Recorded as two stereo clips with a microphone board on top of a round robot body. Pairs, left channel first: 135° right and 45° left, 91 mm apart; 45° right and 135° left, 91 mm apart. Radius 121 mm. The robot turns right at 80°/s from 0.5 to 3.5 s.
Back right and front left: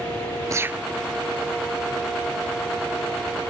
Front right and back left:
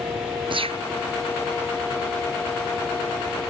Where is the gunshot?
100° left; by 0.9 s 135° left.